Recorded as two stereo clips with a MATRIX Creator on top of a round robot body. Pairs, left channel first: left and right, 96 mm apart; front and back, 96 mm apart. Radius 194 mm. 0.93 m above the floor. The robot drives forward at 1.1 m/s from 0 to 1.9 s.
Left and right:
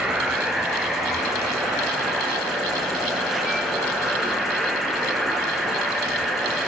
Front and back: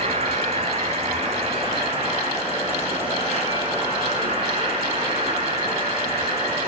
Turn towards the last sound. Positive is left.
turn(degrees=180)